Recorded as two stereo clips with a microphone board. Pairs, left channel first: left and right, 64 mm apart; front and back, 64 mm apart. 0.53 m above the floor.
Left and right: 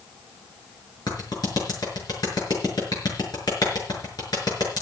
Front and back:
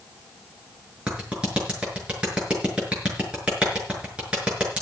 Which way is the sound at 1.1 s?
105° left.